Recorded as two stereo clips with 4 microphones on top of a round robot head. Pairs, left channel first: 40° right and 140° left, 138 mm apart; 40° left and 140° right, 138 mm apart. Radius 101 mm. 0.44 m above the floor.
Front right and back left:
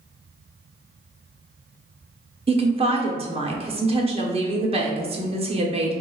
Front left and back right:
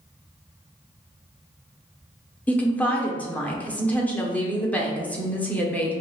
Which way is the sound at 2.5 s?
115° left.